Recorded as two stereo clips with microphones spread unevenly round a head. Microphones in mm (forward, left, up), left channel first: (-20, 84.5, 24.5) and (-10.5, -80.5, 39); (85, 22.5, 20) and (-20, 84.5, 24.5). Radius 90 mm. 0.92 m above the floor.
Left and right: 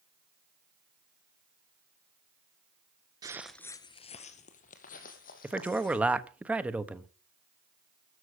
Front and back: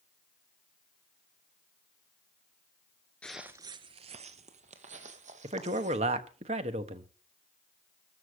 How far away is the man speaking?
About 1.2 m.